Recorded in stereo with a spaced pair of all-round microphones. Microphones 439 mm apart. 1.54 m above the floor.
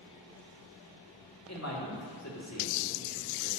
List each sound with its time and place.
1.5 s a man speaking: 35° left (ahead or behind), 2 m